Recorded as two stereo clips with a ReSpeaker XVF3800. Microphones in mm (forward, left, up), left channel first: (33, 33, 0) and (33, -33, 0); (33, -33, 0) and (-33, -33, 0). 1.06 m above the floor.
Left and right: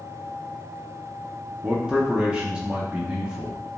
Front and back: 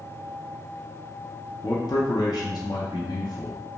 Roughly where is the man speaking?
Ahead.